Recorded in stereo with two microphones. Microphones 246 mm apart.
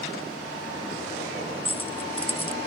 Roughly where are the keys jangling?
Left.